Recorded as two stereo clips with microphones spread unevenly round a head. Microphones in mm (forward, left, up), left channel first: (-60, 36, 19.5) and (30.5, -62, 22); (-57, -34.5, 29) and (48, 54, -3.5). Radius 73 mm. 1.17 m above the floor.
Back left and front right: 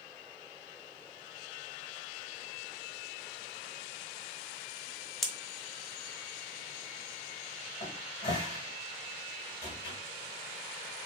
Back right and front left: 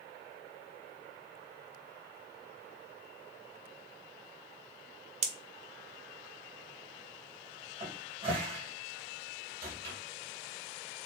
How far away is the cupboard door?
About 2.0 m.